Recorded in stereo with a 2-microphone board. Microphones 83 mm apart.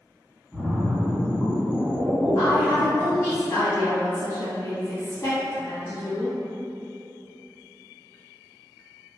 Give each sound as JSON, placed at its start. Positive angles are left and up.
{"t": 0.5, "sound": "a splash", "side_deg": 0, "distance_m": 0.8}
{"t": 2.4, "sound": "a woman speaking", "side_deg": 35, "distance_m": 1.8}